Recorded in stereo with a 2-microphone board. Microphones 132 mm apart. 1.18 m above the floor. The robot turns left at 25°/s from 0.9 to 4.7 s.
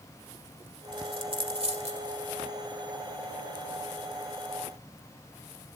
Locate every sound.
0.9 s a dropped coin: 35° right (ahead or behind), 1.8 m; by 2.1 s 60° right (ahead or behind), 1.8 m